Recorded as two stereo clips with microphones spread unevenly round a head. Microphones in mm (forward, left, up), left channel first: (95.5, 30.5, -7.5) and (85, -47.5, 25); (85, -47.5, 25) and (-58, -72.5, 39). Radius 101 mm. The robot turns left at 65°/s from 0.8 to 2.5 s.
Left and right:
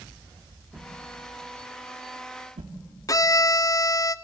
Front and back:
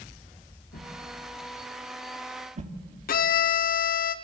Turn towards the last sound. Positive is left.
turn(degrees=40)